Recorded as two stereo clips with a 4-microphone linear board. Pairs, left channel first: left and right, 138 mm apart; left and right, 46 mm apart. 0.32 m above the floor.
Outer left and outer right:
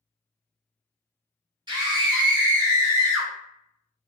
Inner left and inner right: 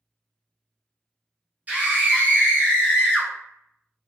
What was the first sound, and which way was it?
A scream, 30° right (ahead or behind).